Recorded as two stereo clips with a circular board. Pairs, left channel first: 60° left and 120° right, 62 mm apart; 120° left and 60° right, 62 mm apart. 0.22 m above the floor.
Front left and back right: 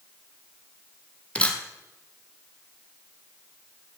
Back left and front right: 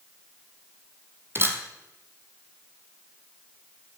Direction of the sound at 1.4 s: 10° right.